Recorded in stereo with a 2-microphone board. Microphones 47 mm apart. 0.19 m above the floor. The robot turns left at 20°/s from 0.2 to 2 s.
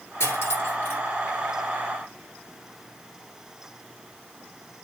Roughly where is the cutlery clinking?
Left.